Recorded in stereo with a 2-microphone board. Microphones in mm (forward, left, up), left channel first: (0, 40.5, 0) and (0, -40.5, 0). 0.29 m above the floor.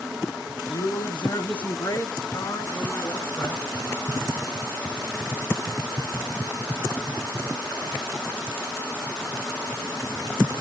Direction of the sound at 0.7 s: 65° left (ahead or behind).